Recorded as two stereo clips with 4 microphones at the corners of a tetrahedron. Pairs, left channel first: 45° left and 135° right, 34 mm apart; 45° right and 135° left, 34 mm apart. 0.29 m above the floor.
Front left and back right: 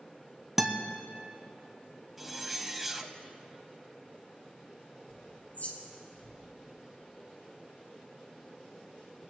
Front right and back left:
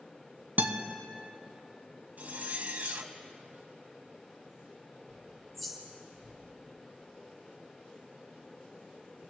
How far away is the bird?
About 2.5 m.